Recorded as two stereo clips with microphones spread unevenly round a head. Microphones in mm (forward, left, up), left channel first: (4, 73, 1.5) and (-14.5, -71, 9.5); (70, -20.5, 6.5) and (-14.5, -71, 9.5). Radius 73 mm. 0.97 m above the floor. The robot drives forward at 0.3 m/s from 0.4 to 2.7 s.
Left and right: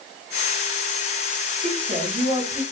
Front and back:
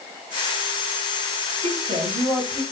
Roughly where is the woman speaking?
Behind right.